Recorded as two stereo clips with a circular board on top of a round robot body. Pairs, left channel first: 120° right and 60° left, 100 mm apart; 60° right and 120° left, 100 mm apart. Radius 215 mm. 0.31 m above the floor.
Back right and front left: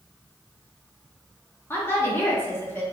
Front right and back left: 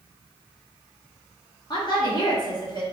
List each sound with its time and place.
1.7 s a woman speaking: 60° right, 1.4 m